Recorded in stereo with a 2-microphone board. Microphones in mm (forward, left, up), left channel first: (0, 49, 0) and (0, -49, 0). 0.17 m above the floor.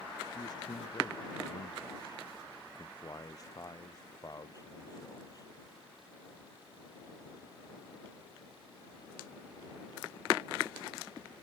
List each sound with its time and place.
0.3 s a man speaking: 40° left (ahead or behind); by 5.5 s 35° left (ahead or behind)